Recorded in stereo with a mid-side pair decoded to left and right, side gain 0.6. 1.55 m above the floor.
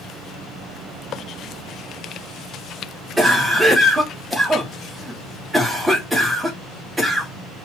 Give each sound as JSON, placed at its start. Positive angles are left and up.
{"t": 3.2, "sound": "a cough", "azimuth_deg": -10, "distance_m": 1.0}